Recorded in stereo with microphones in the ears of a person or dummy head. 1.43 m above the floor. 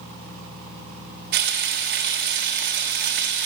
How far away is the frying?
About 1.5 m.